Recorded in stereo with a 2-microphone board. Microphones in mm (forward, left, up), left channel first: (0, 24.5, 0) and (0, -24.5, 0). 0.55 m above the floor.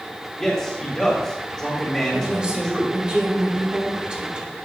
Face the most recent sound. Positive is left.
turn(degrees=-20)  # may be behind; listen again after turning